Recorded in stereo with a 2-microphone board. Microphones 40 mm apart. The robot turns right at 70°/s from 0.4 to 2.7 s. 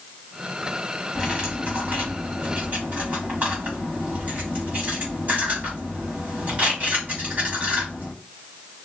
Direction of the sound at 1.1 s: 5° right (ahead or behind).